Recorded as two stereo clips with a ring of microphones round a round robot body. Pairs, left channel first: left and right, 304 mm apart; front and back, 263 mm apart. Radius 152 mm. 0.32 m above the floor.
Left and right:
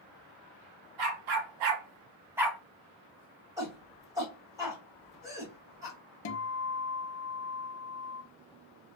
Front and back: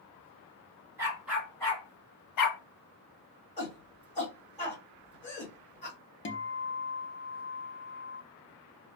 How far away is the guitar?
About 0.6 m.